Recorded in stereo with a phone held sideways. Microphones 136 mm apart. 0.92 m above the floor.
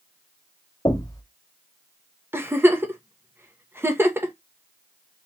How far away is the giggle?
About 0.9 m.